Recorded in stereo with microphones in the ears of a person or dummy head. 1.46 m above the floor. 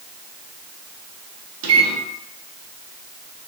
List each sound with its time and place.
1.6 s a microwave: 75° right (ahead or behind), 0.7 m